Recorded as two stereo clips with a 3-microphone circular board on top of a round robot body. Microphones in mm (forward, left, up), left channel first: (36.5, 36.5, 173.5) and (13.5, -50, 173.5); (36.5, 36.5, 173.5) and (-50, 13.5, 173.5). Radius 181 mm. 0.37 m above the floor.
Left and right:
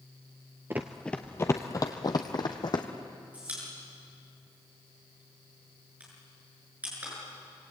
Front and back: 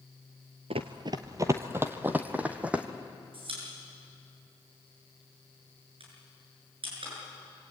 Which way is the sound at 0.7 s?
175° right.